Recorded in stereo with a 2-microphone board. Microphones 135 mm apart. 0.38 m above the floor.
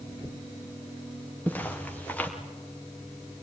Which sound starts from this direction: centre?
Footsteps, at 1.5 s.